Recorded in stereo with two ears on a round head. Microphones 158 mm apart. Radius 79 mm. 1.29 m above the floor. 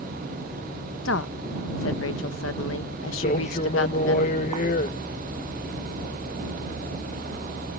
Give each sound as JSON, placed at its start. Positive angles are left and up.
{"t": 1.1, "sound": "a woman speaking", "side_deg": 80}
{"t": 3.2, "sound": "a man speaking", "side_deg": 40}